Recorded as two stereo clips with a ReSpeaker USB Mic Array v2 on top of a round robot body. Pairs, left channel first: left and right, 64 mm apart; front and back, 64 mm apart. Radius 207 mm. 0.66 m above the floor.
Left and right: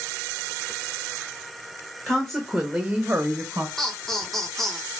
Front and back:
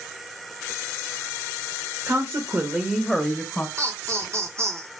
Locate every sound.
2.1 s a woman speaking: 170° left, 1.5 m; by 3.7 s 50° right, 1.4 m
3.8 s laughter: 175° left, 1.4 m